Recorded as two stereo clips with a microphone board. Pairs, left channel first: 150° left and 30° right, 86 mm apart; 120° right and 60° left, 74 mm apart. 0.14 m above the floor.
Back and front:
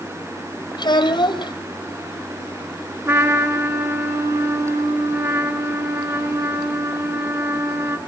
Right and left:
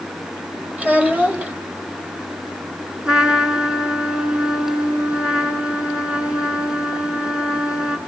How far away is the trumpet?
About 1.9 m.